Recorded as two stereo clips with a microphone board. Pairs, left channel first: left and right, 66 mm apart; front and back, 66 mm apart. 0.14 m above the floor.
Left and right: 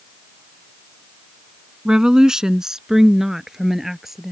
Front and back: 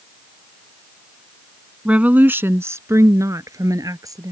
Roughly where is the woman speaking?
Behind right.